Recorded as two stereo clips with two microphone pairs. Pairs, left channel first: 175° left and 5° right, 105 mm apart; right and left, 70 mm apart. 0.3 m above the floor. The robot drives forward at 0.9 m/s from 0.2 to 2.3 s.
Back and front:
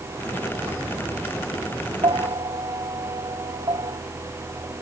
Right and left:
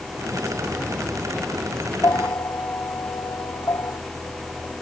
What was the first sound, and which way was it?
A bell, 45° right.